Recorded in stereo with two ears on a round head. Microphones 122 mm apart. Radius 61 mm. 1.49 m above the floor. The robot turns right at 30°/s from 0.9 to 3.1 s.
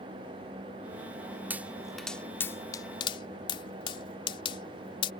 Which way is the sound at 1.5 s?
10° right (ahead or behind).